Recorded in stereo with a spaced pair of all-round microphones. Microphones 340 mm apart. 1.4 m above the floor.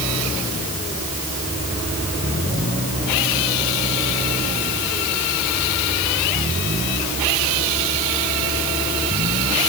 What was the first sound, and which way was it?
Only background noise.